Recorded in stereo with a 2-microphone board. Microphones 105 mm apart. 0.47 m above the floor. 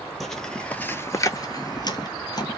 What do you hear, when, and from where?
0.2 s footsteps: centre (ahead or behind), 0.7 m; by 2.6 s 40° left (ahead or behind), 0.9 m